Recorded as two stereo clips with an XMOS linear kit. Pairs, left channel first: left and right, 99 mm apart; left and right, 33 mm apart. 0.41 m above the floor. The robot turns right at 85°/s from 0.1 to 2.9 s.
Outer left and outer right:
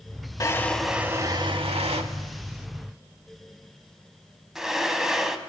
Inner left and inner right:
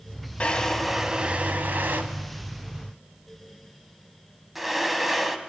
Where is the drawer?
35° left (ahead or behind), 0.6 m; by 5.4 s 5° right (ahead or behind), 0.6 m.